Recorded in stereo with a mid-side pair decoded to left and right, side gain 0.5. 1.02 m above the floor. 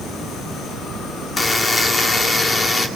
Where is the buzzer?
30° left, 2.5 m.